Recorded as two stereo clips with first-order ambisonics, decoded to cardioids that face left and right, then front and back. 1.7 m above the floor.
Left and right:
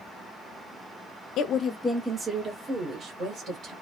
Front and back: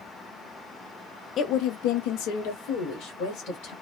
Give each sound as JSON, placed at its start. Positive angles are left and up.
{"t": 1.4, "sound": "a woman speaking", "azimuth_deg": 50, "distance_m": 0.5}